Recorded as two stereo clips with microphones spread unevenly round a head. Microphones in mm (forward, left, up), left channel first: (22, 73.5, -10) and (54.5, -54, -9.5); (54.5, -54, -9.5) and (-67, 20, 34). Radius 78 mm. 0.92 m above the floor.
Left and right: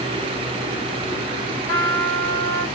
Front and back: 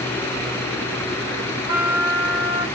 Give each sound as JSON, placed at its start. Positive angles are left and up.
{"t": 1.7, "sound": "a trumpet", "azimuth_deg": 150, "distance_m": 1.9}